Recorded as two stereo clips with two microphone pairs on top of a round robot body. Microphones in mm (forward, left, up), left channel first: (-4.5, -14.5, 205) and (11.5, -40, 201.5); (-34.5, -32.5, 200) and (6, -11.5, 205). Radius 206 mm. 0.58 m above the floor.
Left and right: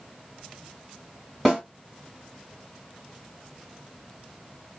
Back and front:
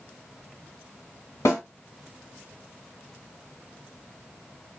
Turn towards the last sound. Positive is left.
turn(degrees=-160)